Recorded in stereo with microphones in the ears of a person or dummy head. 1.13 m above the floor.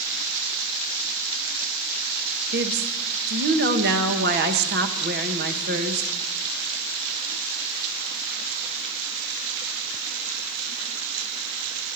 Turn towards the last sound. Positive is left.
turn(degrees=-55)  # may be behind; listen again after turning